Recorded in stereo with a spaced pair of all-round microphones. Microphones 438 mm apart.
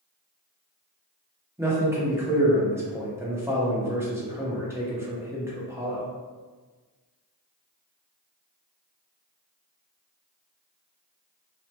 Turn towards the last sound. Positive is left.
turn(degrees=-5)  # may be behind; listen again after turning